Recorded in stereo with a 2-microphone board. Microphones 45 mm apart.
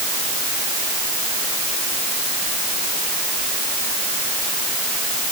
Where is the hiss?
I don't hear a hiss.